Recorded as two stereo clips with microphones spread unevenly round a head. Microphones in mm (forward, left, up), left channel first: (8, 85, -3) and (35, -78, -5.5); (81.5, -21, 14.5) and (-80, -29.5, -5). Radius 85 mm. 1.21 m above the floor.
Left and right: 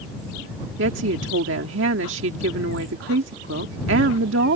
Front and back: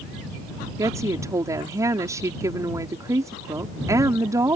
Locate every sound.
0.8 s a woman speaking: 105° right